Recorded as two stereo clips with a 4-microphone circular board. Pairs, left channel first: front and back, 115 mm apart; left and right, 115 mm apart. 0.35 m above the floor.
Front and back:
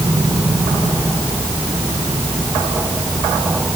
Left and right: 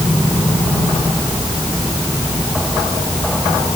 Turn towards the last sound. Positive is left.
No sound to turn to.